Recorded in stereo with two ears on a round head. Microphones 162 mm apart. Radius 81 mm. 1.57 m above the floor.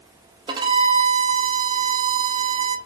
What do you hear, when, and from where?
0.5 s a violin: 25° right (ahead or behind), 0.6 m